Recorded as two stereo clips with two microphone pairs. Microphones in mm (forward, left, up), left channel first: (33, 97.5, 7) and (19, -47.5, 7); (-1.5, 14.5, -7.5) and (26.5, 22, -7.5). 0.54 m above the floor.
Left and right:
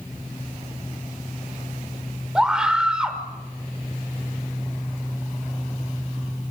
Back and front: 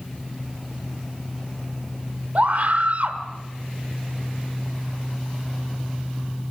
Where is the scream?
10° right, 1.7 m.